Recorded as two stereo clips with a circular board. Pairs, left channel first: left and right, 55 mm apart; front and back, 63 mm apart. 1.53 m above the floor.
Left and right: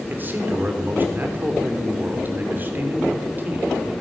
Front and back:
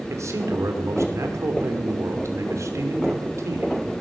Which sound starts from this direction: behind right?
A man speaking, at 0.1 s.